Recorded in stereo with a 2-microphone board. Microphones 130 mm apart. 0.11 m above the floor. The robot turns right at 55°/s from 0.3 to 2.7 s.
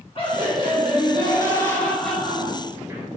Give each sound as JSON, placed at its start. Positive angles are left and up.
{"t": 0.1, "sound": "laughter", "azimuth_deg": 80, "distance_m": 1.5}